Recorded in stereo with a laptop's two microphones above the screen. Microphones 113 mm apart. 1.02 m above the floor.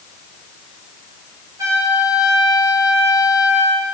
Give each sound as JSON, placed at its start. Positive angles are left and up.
{"t": 1.6, "sound": "a trumpet", "side_deg": -30, "distance_m": 2.5}